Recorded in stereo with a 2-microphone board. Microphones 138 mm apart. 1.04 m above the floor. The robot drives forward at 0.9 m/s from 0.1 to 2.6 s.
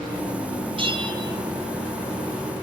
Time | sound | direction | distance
0.8 | a bell | 35° right (ahead or behind) | 0.7 m